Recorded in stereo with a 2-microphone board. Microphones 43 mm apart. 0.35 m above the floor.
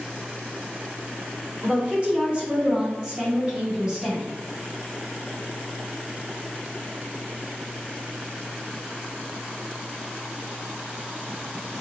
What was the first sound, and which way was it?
A woman speaking, 30° right (ahead or behind).